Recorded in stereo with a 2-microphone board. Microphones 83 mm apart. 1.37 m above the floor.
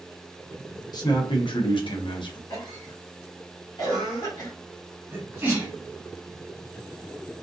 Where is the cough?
55° left (ahead or behind), 1.3 m.